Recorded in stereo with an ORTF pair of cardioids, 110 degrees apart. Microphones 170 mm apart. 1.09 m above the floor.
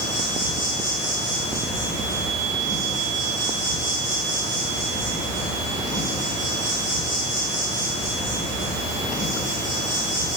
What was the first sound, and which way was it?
An insect, 25° right.